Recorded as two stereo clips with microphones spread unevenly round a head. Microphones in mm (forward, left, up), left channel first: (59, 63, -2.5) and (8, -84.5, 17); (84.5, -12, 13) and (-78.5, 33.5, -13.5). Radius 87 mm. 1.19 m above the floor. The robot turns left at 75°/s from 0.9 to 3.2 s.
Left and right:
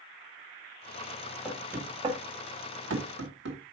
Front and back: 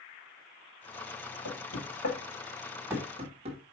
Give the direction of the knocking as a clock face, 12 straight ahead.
12 o'clock.